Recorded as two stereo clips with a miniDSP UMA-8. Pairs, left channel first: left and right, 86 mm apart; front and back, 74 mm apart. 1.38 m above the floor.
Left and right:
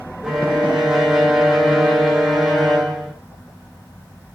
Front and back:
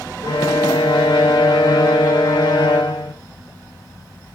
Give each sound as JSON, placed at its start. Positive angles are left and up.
{"t": 0.2, "sound": "a violin", "azimuth_deg": -5, "distance_m": 1.9}